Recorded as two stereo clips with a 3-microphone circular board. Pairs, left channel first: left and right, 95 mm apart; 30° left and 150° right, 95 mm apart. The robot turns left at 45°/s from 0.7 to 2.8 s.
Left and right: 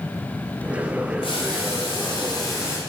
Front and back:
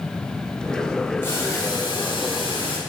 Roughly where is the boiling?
Left.